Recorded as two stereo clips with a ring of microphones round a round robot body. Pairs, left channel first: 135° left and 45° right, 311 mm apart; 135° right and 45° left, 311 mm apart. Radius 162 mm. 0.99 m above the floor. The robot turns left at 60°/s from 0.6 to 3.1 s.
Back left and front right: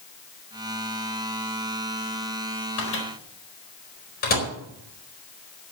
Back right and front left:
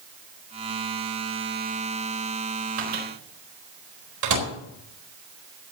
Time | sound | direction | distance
2.8 | a microwave | 90° left | 4.5 m